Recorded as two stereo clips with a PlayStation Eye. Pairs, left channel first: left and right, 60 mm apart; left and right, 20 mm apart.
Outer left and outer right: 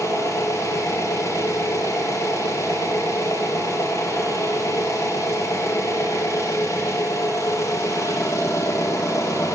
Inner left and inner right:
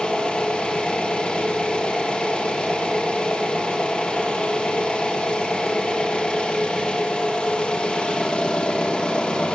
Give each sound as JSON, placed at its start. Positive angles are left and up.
{"t": 0.0, "sound": "an engine running", "side_deg": 65, "distance_m": 3.0}